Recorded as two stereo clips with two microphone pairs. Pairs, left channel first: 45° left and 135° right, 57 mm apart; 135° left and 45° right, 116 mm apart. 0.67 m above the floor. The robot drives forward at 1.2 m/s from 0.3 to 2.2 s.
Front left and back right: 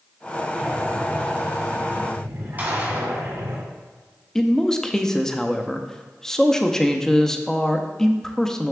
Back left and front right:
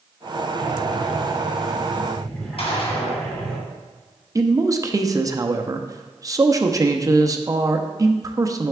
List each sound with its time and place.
0.6 s breathing: 70° right, 1.4 m; by 3.6 s 145° right, 2 m
2.6 s a gunshot: 165° left, 2 m
4.3 s a man speaking: 30° right, 0.5 m